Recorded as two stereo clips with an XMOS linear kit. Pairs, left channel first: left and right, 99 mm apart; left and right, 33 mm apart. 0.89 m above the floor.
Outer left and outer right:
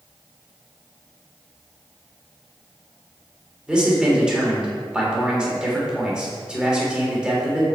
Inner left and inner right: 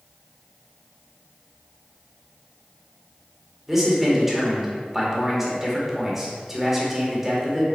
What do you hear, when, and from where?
3.7 s a man speaking: 10° right (ahead or behind), 2.5 m